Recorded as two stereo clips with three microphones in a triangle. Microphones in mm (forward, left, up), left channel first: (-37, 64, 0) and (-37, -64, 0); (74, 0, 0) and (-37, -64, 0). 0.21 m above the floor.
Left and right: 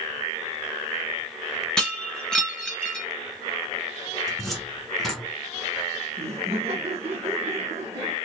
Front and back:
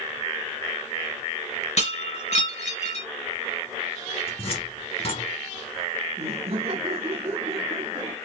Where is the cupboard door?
Straight ahead, 2 m.